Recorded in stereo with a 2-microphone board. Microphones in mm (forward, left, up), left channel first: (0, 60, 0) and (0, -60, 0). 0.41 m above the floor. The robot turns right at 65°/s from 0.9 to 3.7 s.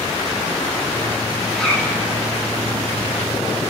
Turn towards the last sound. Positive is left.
turn(degrees=140)